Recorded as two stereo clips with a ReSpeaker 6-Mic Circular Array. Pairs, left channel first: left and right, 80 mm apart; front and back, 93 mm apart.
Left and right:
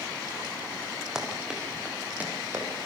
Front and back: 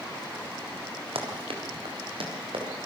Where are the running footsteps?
170° right, 5 m; by 2.9 s 155° right, 6.5 m.